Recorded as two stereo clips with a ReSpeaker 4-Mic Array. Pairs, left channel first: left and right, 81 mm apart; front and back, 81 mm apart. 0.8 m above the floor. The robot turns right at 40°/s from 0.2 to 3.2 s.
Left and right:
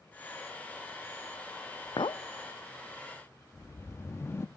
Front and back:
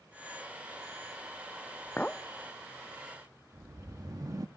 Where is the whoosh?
145° left, 0.9 m.